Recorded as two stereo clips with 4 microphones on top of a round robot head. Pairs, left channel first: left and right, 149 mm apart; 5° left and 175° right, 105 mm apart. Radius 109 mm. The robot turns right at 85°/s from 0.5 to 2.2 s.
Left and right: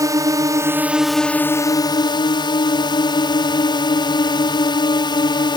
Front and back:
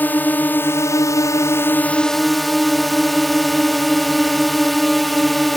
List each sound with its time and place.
0.0 s a drone: 50° right; by 5.6 s 95° left